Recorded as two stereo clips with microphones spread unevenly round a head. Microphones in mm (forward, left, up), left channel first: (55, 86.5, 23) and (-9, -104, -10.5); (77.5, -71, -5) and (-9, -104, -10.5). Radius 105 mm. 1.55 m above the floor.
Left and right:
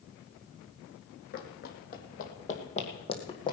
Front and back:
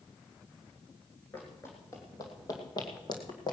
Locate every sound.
1.3 s running footsteps: 90° left, 2.5 m; by 3.5 s 15° left, 2.5 m